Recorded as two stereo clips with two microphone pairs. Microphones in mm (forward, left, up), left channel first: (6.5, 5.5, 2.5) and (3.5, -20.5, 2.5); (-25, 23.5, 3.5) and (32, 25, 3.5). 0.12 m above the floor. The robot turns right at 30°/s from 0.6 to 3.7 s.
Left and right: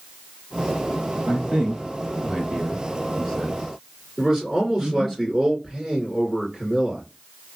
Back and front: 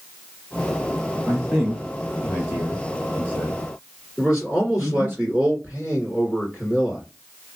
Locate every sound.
1.3 s a man speaking: 105° right, 1.9 m; by 5.2 s 35° right, 1.9 m
4.2 s a man speaking: 60° right, 1.9 m